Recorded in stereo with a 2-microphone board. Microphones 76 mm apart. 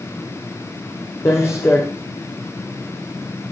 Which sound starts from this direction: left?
Footsteps, at 1.2 s.